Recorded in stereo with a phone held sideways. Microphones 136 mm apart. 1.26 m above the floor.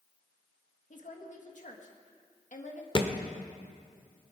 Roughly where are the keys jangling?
I don't hear keys jangling.